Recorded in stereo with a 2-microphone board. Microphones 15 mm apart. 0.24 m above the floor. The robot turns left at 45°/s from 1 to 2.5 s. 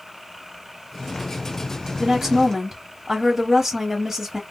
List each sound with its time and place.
2.0 s a woman speaking: 20° right (ahead or behind), 1.0 m